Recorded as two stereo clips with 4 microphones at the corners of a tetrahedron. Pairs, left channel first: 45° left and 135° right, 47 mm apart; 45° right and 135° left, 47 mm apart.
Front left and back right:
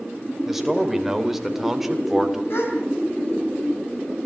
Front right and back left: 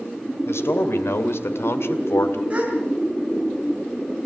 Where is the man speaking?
50° right, 2.5 m.